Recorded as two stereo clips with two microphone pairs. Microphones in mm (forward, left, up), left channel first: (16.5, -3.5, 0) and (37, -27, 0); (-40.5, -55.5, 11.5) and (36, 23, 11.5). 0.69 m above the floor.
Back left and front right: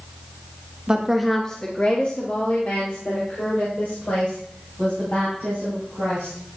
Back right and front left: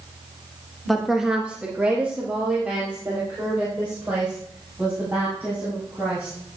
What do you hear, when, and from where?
0.9 s a woman speaking: 50° right, 1.0 m; by 6.4 s 120° left, 7 m